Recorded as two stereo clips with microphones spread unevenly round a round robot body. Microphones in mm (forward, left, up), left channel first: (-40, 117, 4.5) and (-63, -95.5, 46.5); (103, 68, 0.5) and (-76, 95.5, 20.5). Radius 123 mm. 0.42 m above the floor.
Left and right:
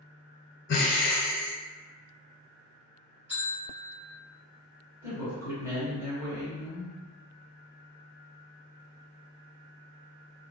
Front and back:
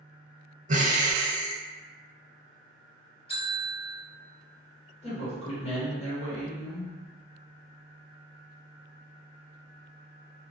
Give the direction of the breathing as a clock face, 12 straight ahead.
8 o'clock.